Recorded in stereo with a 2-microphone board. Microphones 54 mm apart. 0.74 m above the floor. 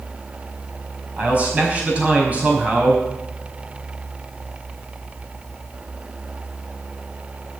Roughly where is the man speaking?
Right.